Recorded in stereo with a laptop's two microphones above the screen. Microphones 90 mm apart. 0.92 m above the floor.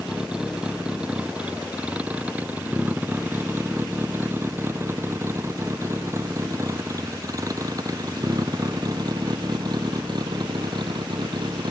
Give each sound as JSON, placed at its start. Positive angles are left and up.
{"t": 0.0, "sound": "a vehicle", "side_deg": -5}